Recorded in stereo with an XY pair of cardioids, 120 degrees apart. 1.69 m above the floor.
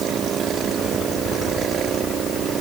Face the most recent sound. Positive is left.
No sound to turn to.